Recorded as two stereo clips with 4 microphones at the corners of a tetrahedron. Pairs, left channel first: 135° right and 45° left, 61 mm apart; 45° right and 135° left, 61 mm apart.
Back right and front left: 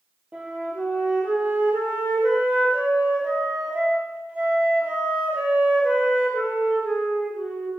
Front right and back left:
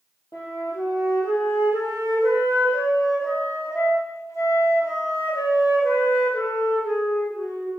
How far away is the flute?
About 1.8 m.